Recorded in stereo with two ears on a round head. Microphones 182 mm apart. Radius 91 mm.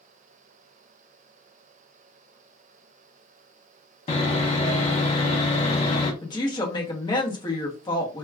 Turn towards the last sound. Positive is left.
turn(degrees=20)  # may be behind; listen again after turning